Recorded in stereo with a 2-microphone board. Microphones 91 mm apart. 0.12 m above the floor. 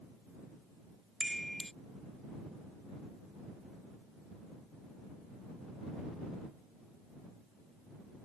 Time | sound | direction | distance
1.2 | a chime | 5° left (ahead or behind) | ?